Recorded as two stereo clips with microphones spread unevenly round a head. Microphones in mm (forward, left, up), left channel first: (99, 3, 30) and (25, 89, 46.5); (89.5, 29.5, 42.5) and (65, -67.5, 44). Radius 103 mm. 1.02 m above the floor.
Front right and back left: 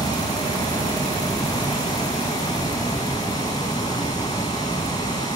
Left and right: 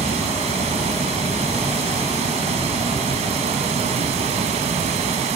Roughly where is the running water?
Behind right.